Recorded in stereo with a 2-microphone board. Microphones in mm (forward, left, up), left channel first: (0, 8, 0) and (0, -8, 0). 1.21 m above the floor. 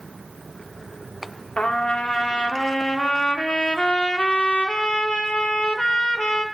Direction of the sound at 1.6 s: 70° left (ahead or behind).